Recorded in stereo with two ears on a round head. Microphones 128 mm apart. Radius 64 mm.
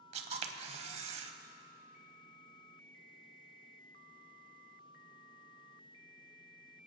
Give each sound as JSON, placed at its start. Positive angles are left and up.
{"t": 0.1, "sound": "a camera shutter", "side_deg": -45, "distance_m": 0.8}